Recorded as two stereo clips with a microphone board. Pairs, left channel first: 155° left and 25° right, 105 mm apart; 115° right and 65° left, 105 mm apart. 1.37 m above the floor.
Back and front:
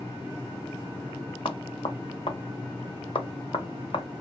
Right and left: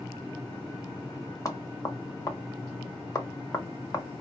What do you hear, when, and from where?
1.4 s knocking: 170° right, 0.6 m